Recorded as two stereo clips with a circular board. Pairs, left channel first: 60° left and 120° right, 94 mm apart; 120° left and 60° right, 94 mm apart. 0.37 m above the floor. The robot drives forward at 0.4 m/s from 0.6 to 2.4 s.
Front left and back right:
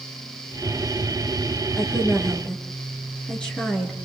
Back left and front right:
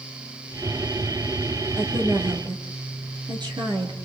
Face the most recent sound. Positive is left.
turn(degrees=-20)